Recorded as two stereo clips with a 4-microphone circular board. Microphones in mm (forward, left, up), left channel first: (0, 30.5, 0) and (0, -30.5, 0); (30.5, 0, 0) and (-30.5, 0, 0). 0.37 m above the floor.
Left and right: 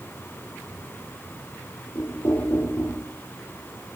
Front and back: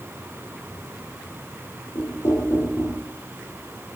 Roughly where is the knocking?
Ahead left.